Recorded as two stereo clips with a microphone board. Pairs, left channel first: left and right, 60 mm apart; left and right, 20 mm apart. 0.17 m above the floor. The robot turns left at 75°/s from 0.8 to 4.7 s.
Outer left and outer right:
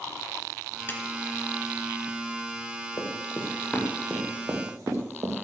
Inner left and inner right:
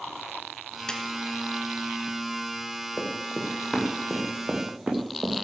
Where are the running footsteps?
75° left (ahead or behind), 4.5 m; by 5.4 s 60° right (ahead or behind), 3 m.